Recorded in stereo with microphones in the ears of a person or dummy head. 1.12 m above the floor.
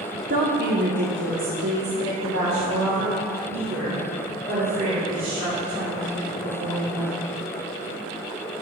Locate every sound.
0.3 s a woman speaking: 40° right (ahead or behind), 0.7 m; by 7.1 s 70° right (ahead or behind), 4.5 m